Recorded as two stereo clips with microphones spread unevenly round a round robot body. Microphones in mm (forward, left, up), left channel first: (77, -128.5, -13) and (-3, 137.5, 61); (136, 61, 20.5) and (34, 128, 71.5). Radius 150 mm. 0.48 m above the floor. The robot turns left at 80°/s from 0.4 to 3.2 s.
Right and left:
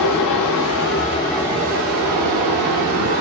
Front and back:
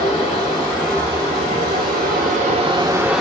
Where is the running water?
85° right, 0.9 m; by 3.2 s 55° left, 0.9 m.